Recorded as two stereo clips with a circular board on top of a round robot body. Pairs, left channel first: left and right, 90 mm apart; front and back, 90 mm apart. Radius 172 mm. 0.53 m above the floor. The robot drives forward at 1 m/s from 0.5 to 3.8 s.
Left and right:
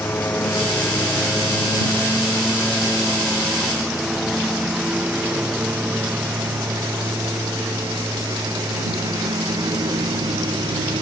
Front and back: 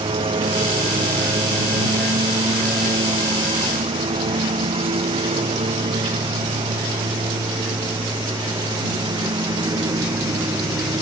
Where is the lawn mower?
160° left; by 11.0 s 130° right.